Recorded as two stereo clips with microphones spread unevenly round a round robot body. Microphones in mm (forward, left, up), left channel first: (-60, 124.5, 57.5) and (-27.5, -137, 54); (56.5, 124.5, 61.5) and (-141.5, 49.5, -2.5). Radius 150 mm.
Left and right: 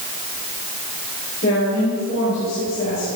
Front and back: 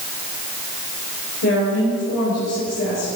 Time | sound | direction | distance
1.4 | a woman speaking | 40° left | 5.5 m